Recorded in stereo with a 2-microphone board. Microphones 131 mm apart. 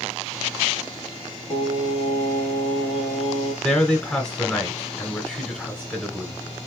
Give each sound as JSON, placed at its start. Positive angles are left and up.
{"t": 1.5, "sound": "singing", "side_deg": 40, "distance_m": 1.3}
{"t": 3.6, "sound": "a man speaking", "side_deg": 5, "distance_m": 1.2}